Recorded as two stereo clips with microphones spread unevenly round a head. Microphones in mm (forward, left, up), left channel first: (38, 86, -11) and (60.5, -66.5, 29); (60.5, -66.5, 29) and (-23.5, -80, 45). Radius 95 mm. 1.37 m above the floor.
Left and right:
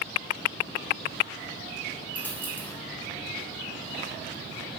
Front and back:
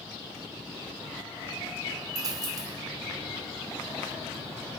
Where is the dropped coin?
170° right, 1.1 m.